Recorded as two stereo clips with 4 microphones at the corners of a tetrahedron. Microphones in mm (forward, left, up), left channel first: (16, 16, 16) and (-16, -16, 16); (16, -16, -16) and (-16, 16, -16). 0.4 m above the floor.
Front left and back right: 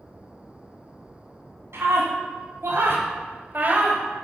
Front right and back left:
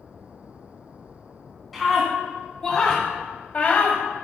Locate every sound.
1.7 s a scream: 135° right, 3.5 m; by 4.0 s 80° right, 1.9 m